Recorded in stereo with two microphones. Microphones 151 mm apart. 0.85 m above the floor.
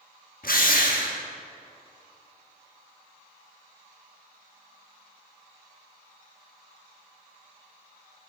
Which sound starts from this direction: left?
A drill, at 0.4 s.